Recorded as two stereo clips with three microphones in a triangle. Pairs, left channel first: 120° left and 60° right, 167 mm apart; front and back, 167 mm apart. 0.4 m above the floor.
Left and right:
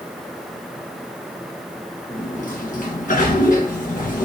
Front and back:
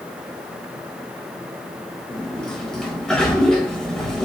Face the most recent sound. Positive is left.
turn(degrees=85)